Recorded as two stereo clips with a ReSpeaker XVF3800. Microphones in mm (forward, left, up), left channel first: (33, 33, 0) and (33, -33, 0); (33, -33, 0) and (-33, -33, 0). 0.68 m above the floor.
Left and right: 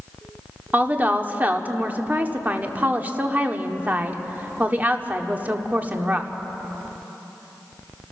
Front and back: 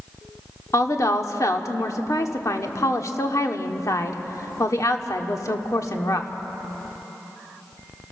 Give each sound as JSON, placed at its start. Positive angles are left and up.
{"t": 0.7, "sound": "a woman speaking", "azimuth_deg": -30, "distance_m": 1.5}